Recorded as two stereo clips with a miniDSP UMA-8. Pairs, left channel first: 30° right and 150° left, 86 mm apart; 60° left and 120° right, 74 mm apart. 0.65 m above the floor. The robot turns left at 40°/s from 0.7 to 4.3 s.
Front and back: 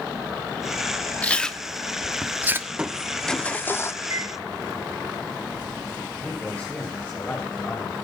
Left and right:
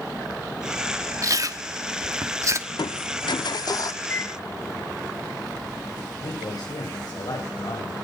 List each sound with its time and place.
1.2 s chewing: 100° right, 1.0 m; by 2.6 s 155° right, 1.0 m
2.7 s crushing: 75° left, 0.5 m; by 3.9 s 25° left, 0.5 m
4.0 s a microwave: 115° left, 1.7 m; by 4.9 s 105° left, 1.7 m
6.2 s a man speaking: 40° left, 3.5 m